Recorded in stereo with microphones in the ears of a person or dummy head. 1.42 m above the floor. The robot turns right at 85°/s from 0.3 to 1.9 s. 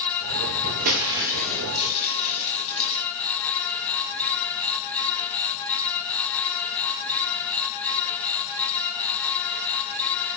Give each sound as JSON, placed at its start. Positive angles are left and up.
{"t": 0.8, "sound": "breaking glass", "azimuth_deg": -55, "distance_m": 6.5}